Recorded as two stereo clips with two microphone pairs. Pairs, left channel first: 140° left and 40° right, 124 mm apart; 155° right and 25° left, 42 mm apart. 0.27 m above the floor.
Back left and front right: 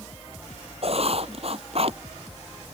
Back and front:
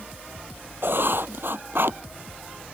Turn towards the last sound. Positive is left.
turn(degrees=-5)